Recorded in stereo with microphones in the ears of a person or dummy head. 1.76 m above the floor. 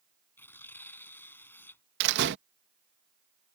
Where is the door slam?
60° right (ahead or behind).